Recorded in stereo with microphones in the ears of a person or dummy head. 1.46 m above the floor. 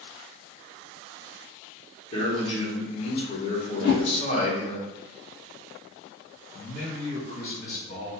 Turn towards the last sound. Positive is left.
turn(degrees=50)  # may be behind; listen again after turning